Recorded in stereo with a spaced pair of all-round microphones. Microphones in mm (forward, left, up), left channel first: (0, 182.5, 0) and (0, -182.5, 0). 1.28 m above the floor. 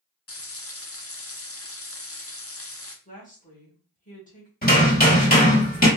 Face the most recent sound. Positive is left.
turn(degrees=25)  # may be behind; listen again after turning